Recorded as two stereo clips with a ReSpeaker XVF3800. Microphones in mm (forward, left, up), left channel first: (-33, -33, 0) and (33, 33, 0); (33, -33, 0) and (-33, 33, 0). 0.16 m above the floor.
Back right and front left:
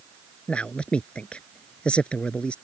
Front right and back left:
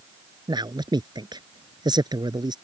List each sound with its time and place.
0.5 s a man speaking: 150° left